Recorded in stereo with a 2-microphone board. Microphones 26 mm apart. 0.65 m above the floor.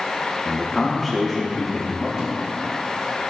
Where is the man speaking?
5° left (ahead or behind), 1.1 m.